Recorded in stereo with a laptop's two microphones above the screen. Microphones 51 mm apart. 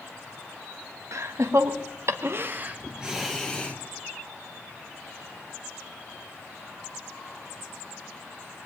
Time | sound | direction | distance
1.1 | laughter | 75° right (ahead or behind) | 1.3 m